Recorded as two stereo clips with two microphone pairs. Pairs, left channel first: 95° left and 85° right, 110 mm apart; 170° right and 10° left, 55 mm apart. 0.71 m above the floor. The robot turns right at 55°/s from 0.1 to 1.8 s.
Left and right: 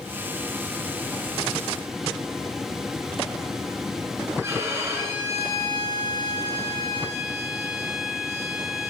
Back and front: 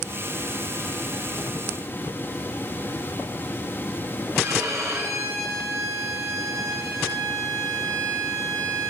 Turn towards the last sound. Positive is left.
turn(degrees=-15)